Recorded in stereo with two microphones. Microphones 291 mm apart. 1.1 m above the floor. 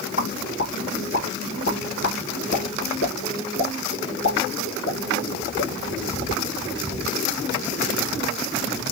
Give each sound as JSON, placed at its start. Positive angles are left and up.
{"t": 0.2, "sound": "a pop", "side_deg": 50, "distance_m": 1.7}